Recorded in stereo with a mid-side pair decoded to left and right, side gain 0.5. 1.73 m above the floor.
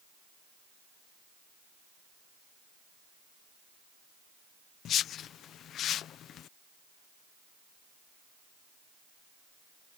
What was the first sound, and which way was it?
A whoosh, 60° left.